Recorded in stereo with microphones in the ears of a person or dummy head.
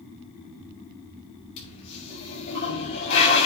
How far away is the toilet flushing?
About 5 m.